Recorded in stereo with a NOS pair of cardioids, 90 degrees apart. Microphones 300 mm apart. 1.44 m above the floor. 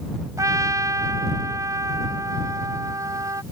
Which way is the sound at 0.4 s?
10° right.